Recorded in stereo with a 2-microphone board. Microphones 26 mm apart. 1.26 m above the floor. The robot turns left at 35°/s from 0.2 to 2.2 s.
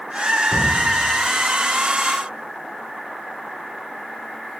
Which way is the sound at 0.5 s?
30° right (ahead or behind).